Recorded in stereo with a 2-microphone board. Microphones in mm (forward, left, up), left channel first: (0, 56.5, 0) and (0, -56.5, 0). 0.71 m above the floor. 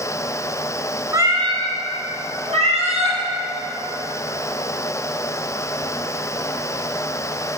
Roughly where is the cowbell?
I don't hear a cowbell.